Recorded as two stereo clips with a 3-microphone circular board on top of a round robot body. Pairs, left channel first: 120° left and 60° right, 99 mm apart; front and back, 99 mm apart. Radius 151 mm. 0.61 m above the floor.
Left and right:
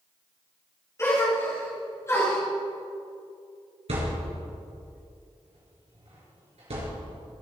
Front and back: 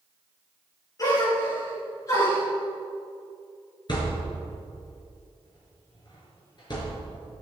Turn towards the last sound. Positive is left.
turn(degrees=-45)